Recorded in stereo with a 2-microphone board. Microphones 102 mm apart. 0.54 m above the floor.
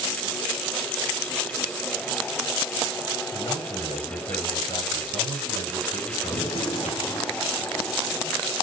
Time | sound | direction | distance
3.3 | a man speaking | 70° left (ahead or behind) | 3.5 m
6.3 | a gunshot | 80° left | 2 m